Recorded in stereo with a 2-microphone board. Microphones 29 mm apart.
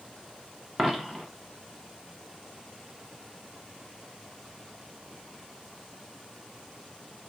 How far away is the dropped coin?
About 0.7 m.